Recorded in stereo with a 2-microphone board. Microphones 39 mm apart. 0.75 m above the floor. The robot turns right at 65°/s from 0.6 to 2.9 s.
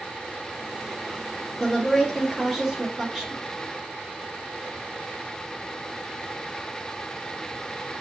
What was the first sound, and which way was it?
A woman speaking, 15° left (ahead or behind).